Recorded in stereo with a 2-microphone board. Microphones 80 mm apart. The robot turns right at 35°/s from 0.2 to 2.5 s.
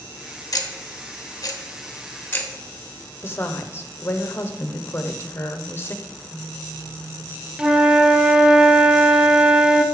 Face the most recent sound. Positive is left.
turn(degrees=-10)  # may be behind; listen again after turning